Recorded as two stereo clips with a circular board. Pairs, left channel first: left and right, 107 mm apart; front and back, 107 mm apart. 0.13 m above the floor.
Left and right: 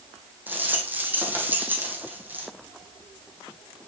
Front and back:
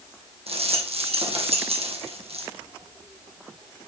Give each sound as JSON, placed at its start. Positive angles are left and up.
{"t": 0.5, "sound": "a rattle", "azimuth_deg": -165, "distance_m": 2.5}